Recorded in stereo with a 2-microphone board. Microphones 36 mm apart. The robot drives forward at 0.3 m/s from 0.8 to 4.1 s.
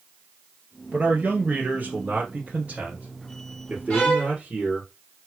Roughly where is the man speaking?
Right.